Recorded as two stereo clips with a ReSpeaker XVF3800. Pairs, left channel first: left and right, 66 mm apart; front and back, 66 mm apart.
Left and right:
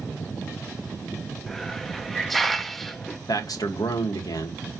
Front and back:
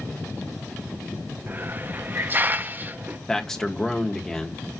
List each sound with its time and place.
1.5 s a hiss: 175° left, 0.9 m
3.3 s a man speaking: 80° left, 2.5 m